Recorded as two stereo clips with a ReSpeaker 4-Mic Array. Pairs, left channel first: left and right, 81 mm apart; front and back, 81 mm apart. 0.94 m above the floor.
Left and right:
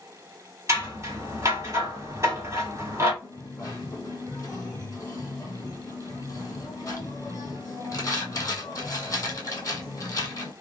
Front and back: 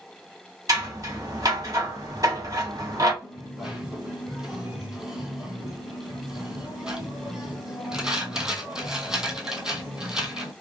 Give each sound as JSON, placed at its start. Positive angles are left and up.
{"t": 0.7, "sound": "scissors", "azimuth_deg": -140, "distance_m": 1.6}
{"t": 3.2, "sound": "a dropped coin", "azimuth_deg": 105, "distance_m": 1.2}